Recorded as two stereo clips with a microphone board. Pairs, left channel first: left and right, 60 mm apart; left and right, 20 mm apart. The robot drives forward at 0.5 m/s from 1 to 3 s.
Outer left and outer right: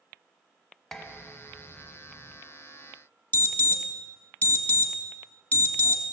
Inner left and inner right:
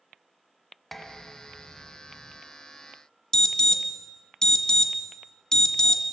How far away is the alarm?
About 1.7 m.